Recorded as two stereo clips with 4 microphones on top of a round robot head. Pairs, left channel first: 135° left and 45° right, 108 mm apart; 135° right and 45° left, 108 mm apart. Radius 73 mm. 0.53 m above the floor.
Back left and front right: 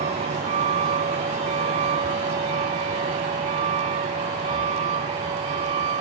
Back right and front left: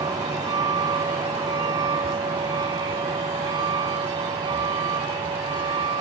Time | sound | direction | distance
0.0 | a vehicle | 15° right | ?